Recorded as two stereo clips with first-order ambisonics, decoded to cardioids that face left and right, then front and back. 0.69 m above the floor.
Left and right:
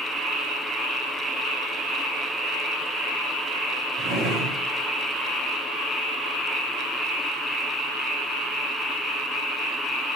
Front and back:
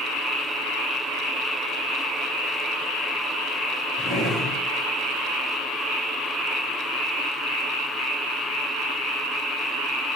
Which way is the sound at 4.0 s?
65° right.